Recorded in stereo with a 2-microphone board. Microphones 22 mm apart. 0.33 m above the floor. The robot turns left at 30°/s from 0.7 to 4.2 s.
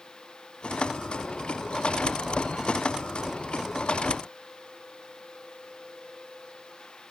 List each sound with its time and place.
Only background noise.